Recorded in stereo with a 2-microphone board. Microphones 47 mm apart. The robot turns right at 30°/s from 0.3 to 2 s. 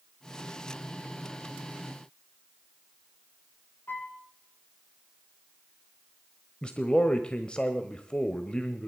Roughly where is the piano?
Left.